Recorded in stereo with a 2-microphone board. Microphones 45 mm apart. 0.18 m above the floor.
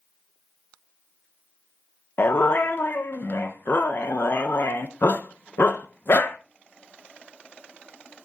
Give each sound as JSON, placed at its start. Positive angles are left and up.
{"t": 2.2, "sound": "a dog barking", "side_deg": 55, "distance_m": 0.9}